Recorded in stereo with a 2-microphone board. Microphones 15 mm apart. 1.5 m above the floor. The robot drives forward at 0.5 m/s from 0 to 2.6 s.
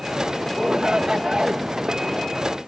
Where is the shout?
75° right (ahead or behind); by 1.6 s 65° right (ahead or behind).